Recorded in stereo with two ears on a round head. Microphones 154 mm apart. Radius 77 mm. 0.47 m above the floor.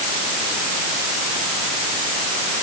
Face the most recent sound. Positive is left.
No sound to turn to.